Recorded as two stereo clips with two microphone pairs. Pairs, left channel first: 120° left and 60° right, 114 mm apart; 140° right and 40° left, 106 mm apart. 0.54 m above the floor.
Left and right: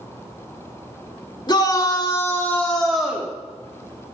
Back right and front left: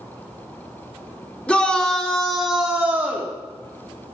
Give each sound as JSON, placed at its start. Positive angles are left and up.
{"t": 1.5, "sound": "a shout", "azimuth_deg": 145, "distance_m": 1.6}